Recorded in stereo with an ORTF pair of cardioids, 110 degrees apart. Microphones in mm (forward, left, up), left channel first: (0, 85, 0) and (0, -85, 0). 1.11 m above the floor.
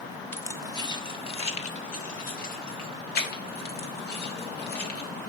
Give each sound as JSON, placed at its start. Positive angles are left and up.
{"t": 0.3, "sound": "keys jangling", "azimuth_deg": 10, "distance_m": 1.3}